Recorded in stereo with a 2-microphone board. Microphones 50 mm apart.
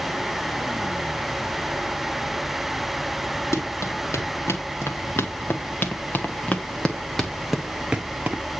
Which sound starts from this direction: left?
Running footsteps, at 3.5 s.